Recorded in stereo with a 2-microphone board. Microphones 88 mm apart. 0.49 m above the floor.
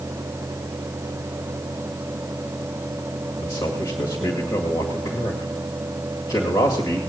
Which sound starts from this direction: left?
A man speaking, at 3.4 s.